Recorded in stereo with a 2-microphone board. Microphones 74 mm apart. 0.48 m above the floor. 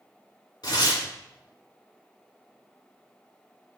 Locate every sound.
0.6 s tearing paper: 70° left (ahead or behind), 3 m